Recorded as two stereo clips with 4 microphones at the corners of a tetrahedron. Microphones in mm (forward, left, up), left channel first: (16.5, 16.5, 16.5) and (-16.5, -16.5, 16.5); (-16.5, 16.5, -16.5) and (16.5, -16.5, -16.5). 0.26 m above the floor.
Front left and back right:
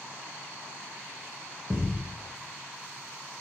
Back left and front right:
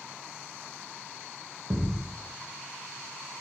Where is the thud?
80° right, 0.9 m.